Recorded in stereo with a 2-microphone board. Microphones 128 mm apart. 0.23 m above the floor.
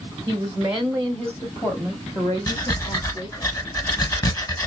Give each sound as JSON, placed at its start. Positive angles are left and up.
{"t": 0.3, "sound": "a woman speaking", "side_deg": -20, "distance_m": 1.2}
{"t": 2.5, "sound": "breathing", "side_deg": 30, "distance_m": 1.2}